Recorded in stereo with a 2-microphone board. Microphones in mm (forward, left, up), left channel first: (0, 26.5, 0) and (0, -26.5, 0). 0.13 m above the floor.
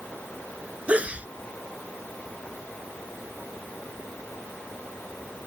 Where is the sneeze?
25° right (ahead or behind).